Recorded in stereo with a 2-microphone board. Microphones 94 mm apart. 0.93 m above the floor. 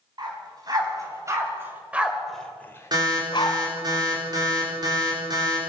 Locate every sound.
0.2 s a dog barking: 45° right (ahead or behind), 4 m; by 3.6 s 55° left (ahead or behind), 2 m
2.9 s an alarm: 45° right (ahead or behind), 4.5 m